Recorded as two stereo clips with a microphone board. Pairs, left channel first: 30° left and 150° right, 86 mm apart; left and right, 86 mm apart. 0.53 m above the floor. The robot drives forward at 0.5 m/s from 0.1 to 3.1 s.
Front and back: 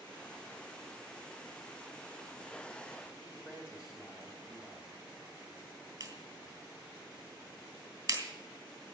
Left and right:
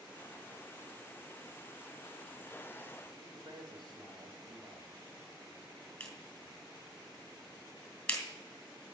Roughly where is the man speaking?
Right.